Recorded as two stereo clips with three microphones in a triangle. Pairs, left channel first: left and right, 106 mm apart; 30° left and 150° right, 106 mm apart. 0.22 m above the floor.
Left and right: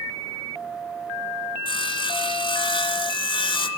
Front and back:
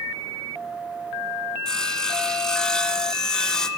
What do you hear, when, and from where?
1.6 s sawing: 110° left, 1.2 m